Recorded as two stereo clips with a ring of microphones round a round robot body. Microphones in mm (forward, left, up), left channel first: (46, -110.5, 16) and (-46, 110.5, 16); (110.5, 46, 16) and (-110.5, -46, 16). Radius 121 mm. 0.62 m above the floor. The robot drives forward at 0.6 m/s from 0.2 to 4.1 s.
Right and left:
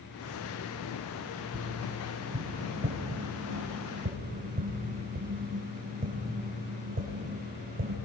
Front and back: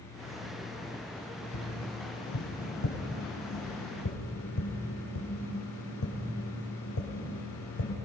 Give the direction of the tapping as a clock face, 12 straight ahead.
11 o'clock.